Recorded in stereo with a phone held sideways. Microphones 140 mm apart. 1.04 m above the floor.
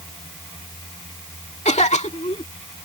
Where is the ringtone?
I don't hear a ringtone.